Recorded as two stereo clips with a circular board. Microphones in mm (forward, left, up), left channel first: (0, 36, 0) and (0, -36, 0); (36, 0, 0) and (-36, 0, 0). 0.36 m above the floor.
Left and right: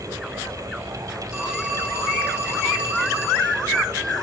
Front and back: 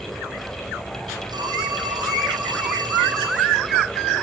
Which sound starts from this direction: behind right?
A phone ringing, at 1.3 s.